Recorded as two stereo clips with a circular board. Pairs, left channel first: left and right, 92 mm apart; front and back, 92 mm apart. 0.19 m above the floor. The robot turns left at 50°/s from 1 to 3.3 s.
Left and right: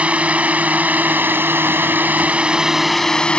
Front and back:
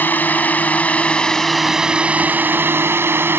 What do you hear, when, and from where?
0.0 s a drone: 35° right; by 3.4 s 155° left